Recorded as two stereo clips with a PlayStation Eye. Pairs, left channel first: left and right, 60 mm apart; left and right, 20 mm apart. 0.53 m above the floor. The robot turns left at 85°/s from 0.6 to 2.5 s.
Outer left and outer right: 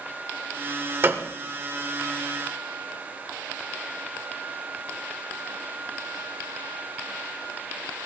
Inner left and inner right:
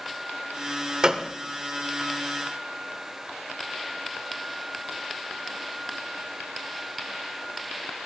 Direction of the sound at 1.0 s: 40° right (ahead or behind).